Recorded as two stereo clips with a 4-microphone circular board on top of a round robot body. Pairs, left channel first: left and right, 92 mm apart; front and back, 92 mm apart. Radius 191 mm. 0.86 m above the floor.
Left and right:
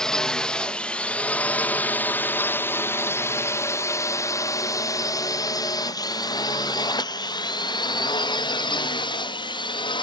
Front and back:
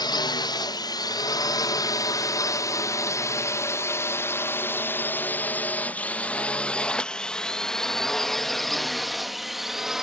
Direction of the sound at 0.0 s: 10° left.